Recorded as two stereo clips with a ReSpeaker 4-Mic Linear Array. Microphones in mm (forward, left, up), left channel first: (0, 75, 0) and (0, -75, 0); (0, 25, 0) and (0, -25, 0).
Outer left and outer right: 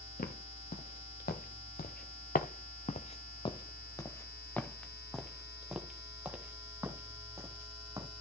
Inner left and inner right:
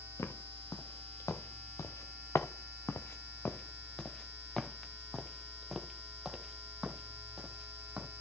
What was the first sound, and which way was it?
Footsteps, 75° left (ahead or behind).